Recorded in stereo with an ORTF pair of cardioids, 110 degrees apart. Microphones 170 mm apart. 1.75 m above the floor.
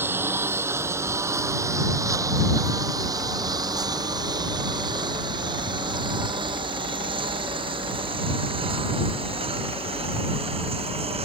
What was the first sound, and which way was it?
A lawn mower, 15° right.